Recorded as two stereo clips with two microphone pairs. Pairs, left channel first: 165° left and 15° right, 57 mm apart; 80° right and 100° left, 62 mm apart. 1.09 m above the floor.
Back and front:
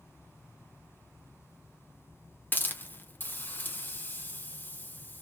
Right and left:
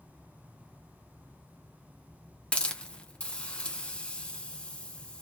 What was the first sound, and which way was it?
A hiss, 150° right.